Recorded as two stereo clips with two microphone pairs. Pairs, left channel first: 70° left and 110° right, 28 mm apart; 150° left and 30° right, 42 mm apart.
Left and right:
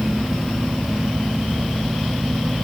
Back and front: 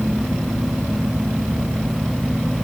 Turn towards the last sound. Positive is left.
No sound to turn to.